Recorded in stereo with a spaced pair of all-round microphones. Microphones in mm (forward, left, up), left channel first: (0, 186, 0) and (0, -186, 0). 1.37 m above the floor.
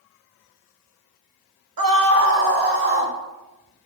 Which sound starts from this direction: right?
A scream, at 1.8 s.